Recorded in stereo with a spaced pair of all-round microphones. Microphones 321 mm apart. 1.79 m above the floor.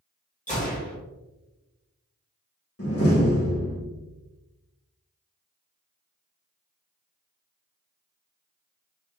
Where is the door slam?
45° left (ahead or behind), 1.5 m.